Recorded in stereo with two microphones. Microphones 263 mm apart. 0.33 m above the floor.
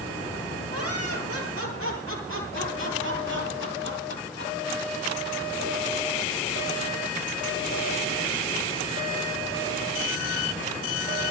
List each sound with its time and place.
0.7 s laughter: 60° right (ahead or behind), 9 m; by 4.5 s 40° right (ahead or behind), 10 m